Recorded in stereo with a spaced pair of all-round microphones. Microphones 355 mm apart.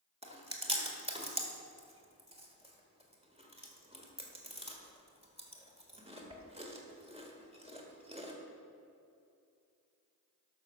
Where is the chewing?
15° right (ahead or behind), 1.6 m.